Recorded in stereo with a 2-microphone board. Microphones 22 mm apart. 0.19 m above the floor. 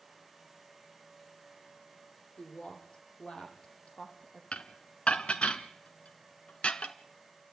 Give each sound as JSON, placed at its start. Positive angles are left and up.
{"t": 2.4, "sound": "a woman speaking", "side_deg": 45, "distance_m": 8.0}
{"t": 4.5, "sound": "dishes clattering", "side_deg": 55, "distance_m": 1.5}